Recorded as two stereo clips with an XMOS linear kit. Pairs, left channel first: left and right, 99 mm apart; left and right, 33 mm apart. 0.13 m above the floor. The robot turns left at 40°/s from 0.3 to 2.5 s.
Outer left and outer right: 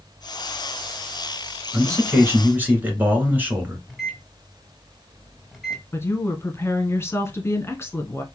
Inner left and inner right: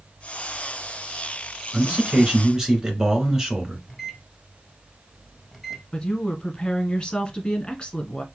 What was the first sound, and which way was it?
A man speaking, 115° right.